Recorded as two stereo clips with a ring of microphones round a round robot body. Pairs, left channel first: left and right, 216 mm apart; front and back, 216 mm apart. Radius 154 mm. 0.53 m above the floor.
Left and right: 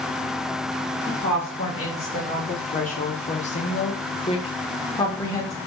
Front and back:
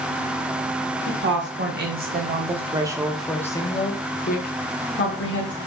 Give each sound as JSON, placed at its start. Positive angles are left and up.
{"t": 1.1, "sound": "a woman speaking", "azimuth_deg": 160, "distance_m": 1.3}